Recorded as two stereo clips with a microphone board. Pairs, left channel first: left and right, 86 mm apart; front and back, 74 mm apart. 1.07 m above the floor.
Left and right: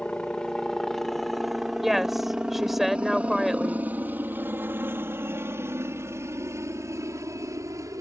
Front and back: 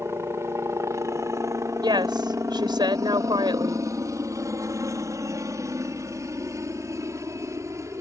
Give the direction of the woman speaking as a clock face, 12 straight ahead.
6 o'clock.